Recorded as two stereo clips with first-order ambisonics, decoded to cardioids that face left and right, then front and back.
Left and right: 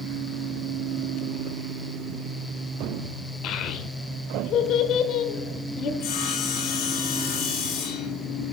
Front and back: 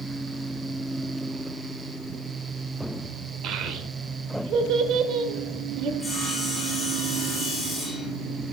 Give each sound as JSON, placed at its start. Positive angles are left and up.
{"t": 3.4, "sound": "a child speaking", "azimuth_deg": 135, "distance_m": 1.0}
{"t": 6.0, "sound": "sawing", "azimuth_deg": 85, "distance_m": 3.0}